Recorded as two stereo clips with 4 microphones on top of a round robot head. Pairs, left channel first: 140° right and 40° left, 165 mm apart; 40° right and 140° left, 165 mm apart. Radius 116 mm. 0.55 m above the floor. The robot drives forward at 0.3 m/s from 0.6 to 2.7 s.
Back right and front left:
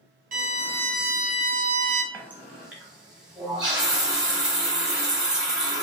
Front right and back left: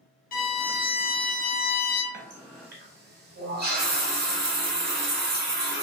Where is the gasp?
No gasp in this recording.